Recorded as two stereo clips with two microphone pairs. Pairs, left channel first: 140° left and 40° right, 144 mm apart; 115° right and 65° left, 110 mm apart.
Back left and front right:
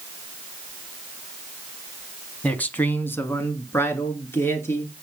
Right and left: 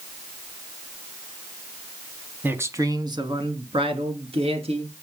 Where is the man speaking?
80° left, 1.2 m; by 4.9 s 65° left, 3 m.